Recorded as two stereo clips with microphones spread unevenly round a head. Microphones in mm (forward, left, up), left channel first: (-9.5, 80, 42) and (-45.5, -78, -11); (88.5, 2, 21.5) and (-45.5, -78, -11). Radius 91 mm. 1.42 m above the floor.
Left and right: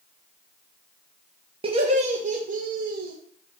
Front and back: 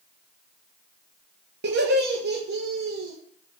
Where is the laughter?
155° right, 1.8 m; by 3.1 s 125° right, 2 m.